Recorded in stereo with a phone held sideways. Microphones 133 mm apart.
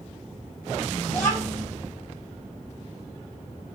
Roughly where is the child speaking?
Left.